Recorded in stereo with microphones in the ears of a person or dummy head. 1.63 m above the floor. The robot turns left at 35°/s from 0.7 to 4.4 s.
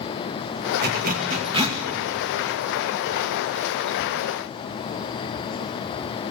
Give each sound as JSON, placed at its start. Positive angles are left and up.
{"t": 0.8, "sound": "a zipper", "side_deg": -60, "distance_m": 1.9}